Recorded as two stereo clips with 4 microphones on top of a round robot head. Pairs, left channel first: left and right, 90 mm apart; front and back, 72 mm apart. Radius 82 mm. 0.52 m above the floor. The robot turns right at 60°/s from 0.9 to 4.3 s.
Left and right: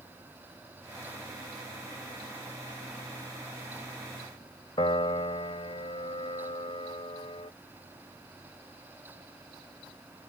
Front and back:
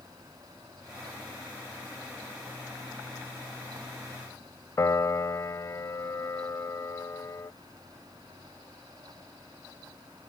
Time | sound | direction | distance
4.8 | a piano | 45° left | ?